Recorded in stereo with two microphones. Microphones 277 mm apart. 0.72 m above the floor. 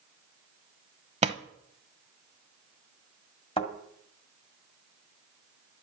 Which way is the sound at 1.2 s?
25° right (ahead or behind).